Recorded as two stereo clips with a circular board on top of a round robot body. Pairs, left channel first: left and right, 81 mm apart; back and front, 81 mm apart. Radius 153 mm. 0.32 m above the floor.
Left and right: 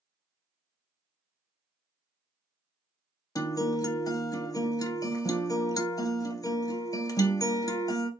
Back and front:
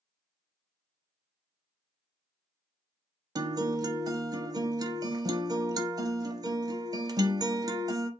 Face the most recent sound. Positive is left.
turn(degrees=45)